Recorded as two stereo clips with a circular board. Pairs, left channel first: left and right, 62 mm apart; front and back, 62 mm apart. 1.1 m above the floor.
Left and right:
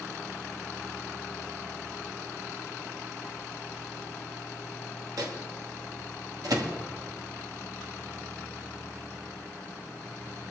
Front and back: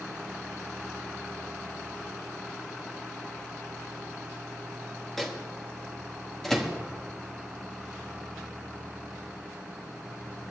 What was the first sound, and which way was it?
A microwave, 85° right.